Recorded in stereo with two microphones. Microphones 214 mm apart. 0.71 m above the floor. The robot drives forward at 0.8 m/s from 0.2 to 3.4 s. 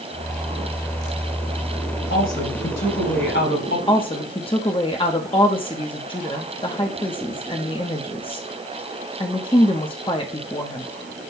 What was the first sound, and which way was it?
A woman speaking, 75° left (ahead or behind).